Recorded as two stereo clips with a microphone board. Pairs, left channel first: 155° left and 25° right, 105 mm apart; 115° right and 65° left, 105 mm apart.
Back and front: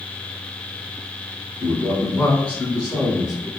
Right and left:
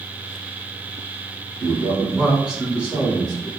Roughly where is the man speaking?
Behind.